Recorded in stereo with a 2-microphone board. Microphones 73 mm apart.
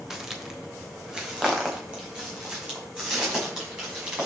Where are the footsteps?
5° right (ahead or behind), 1.5 m; by 4.2 s 15° right (ahead or behind), 6.5 m.